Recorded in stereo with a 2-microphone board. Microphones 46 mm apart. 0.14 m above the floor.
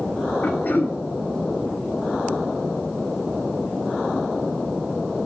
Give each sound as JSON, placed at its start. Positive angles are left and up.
{"t": 0.4, "sound": "throat clearing", "side_deg": 45, "distance_m": 2.5}